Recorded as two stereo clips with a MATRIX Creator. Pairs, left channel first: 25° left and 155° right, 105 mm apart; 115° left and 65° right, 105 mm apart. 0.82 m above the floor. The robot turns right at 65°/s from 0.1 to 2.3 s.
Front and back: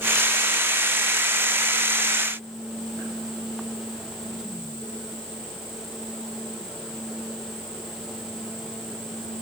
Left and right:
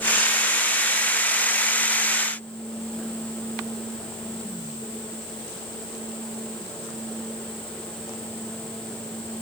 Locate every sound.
Only background noise.